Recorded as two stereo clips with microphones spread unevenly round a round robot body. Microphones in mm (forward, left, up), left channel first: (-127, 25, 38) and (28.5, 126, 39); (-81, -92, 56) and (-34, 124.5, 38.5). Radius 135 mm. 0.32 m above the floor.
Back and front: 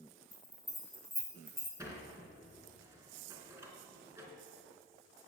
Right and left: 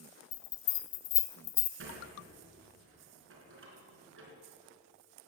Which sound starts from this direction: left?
A sliding door, at 1.8 s.